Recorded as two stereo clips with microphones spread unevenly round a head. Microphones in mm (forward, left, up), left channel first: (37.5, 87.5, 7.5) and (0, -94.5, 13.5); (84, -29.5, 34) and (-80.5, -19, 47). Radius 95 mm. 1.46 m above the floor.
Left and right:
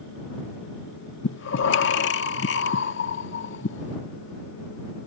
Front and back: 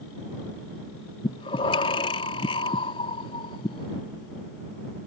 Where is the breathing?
60° left.